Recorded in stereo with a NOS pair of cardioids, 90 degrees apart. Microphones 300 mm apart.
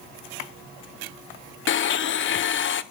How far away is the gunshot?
No gunshot in this recording.